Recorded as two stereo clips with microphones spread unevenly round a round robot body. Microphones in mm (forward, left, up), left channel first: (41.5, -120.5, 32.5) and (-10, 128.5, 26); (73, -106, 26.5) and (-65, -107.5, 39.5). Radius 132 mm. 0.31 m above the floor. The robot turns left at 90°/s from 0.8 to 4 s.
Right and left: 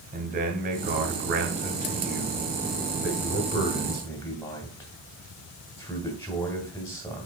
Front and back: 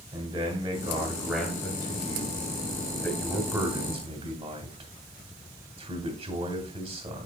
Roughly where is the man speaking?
Behind left.